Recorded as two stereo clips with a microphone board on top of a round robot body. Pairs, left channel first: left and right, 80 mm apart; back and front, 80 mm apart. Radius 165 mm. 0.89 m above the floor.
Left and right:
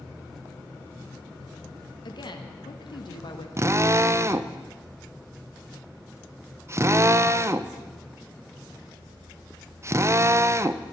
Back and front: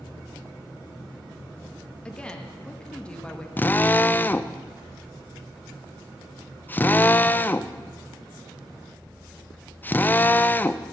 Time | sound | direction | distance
2.0 | a woman speaking | 100° left | 1.7 m
3.6 | a drill | 125° right | 0.8 m